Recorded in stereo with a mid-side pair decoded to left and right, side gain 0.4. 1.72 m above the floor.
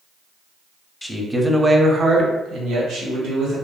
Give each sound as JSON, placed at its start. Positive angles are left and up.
{"t": 1.0, "sound": "a man speaking", "azimuth_deg": 10, "distance_m": 0.6}